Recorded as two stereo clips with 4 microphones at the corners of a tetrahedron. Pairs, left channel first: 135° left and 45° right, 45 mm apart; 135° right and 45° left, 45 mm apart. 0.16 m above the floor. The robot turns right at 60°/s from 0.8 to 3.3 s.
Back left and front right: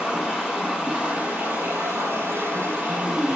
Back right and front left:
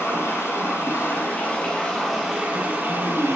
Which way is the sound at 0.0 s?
125° right.